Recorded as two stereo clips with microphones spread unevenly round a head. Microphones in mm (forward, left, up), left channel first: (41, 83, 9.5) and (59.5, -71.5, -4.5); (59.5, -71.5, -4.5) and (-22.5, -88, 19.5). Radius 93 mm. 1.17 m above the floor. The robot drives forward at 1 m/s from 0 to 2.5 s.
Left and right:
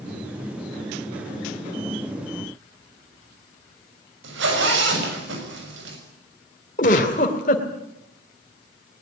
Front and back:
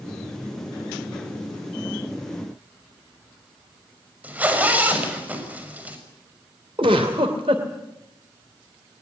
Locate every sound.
4.2 s a zipper: 95° right, 6 m
6.8 s a giggle: 145° left, 2 m